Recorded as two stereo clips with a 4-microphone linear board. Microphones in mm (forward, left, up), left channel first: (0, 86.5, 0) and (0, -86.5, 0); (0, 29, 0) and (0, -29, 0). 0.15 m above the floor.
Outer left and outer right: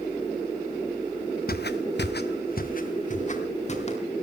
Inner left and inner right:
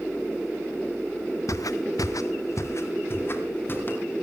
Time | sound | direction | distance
1.5 | footsteps | 60° left (ahead or behind) | 1.1 m